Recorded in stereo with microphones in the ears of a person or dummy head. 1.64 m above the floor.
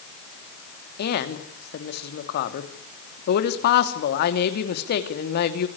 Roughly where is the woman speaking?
Left.